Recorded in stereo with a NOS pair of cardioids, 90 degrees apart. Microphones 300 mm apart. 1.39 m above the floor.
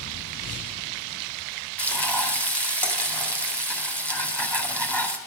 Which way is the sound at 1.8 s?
5° left.